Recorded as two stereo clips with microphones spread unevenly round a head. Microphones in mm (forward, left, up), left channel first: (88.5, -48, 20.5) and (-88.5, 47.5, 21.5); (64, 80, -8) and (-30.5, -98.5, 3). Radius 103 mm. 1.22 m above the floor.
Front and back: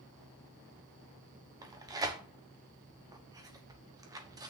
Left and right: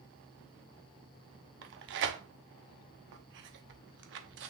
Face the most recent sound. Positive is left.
turn(degrees=-135)